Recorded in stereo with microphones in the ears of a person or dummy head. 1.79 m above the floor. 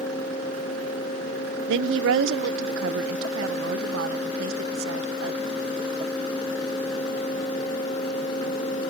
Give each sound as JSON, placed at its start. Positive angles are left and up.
{"t": 1.7, "sound": "a woman speaking", "side_deg": -70}